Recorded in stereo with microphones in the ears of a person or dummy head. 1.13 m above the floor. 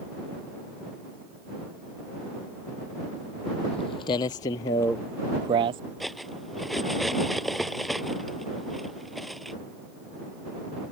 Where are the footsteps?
35° left (ahead or behind); by 5.8 s 25° right (ahead or behind).